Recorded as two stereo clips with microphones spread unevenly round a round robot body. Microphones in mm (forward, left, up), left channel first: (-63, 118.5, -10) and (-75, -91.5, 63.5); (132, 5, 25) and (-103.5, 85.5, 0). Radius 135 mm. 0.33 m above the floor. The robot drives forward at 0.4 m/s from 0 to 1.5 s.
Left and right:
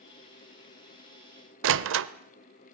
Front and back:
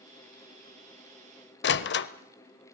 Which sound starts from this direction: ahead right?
A door slam, at 1.6 s.